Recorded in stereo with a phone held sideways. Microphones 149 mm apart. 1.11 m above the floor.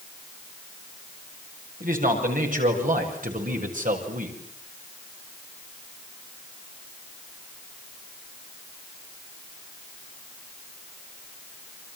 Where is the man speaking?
70° right (ahead or behind), 7.5 m; by 4.4 s 65° right (ahead or behind), 6 m.